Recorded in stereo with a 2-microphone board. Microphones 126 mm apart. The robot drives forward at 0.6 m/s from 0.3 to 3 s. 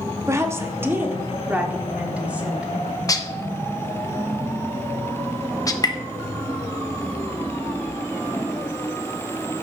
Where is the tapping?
30° left (ahead or behind), 0.7 m.